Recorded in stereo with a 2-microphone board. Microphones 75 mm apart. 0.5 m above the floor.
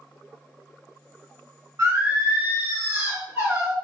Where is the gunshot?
No gunshot in this recording.